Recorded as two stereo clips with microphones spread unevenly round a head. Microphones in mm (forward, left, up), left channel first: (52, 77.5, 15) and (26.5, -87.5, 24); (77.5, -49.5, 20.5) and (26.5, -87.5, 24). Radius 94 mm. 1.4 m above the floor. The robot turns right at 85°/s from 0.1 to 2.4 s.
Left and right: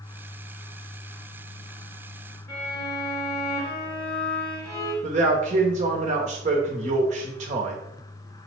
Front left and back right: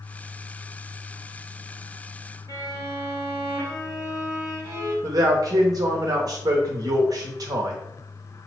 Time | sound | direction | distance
2.5 | a violin | 160° left | 0.9 m
5.0 | a man speaking | 150° right | 0.6 m